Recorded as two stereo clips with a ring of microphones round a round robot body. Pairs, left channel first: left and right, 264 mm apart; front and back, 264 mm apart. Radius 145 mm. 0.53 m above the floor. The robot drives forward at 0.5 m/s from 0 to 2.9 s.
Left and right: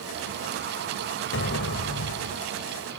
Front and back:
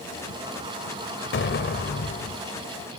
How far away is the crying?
No crying in this recording.